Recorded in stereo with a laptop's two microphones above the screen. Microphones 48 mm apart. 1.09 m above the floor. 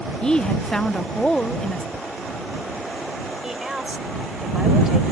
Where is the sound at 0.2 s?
15° left (ahead or behind).